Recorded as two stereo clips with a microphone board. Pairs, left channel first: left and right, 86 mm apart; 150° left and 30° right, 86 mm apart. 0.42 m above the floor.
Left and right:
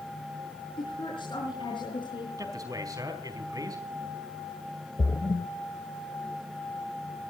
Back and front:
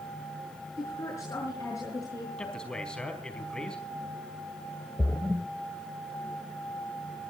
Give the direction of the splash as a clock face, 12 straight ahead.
10 o'clock.